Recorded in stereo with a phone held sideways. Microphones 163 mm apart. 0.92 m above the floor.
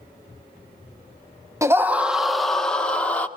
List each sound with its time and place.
1.6 s a scream: 20° right (ahead or behind), 0.7 m; by 3.3 s 10° left (ahead or behind), 1.7 m